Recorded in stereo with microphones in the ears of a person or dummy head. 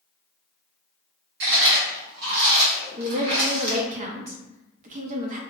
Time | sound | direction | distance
1.4 | chewing | 60° right (ahead or behind) | 1.4 m
3.0 | a woman speaking | 45° right (ahead or behind) | 0.7 m